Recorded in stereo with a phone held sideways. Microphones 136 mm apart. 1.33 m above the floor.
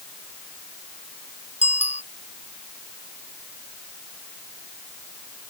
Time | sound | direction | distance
1.6 | a bicycle bell | 55° left (ahead or behind) | ?